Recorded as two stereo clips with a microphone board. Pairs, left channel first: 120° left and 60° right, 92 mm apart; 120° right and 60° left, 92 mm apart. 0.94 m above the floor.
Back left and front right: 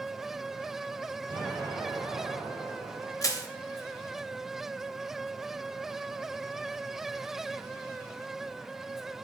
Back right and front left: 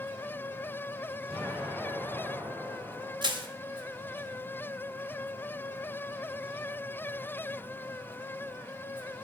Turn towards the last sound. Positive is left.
turn(degrees=75)